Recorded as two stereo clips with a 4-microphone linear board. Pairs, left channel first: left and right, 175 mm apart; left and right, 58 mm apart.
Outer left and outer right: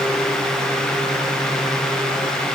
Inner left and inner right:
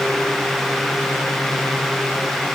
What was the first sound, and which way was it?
Only background noise.